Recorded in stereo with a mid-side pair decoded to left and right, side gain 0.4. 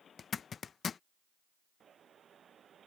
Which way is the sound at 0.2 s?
50° left.